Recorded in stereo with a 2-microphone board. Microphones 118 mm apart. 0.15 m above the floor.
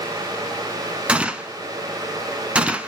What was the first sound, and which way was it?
A gunshot, 10° right (ahead or behind).